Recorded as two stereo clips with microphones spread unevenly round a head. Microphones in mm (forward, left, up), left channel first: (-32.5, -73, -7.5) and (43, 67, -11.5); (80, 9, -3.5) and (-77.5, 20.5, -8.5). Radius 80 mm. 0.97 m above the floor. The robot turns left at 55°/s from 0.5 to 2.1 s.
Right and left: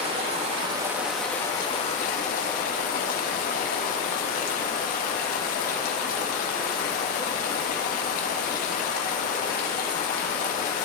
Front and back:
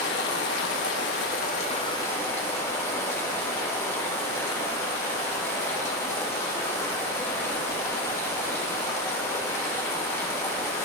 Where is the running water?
10° left, 1.2 m; by 10.9 s 80° right, 1.2 m.